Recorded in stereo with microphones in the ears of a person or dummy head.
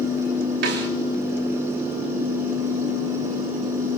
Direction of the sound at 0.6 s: 65° right (ahead or behind).